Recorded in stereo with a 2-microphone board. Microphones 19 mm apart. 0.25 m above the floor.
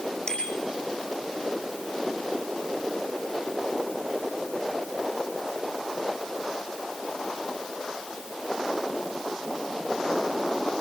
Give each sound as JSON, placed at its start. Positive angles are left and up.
{"t": 0.3, "sound": "a bicycle bell", "side_deg": 30, "distance_m": 8.0}